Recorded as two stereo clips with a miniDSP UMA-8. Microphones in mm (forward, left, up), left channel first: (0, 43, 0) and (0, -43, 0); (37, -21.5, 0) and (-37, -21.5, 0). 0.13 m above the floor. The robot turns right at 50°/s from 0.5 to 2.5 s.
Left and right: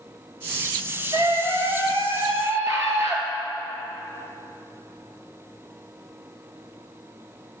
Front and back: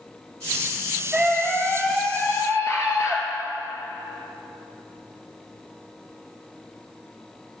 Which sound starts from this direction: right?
A scream, at 1.1 s.